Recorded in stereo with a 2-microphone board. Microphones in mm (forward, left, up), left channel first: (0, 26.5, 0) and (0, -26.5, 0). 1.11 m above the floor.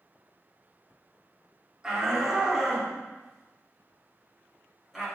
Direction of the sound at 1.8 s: 10° right (ahead or behind).